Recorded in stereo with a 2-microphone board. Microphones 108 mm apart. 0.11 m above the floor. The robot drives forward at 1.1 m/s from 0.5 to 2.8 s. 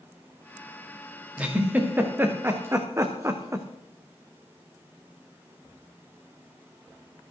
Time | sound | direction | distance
1.4 | a giggle | 15° right (ahead or behind) | 3.5 m